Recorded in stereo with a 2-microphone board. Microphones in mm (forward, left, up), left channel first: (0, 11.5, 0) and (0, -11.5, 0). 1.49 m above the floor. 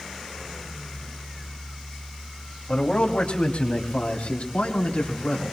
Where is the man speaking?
55° left (ahead or behind), 2.5 m; by 5.5 s 85° left, 4 m.